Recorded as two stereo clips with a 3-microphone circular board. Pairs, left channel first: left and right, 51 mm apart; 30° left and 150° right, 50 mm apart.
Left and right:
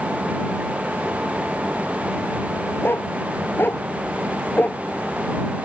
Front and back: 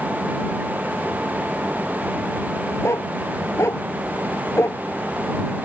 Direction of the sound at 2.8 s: 45° left.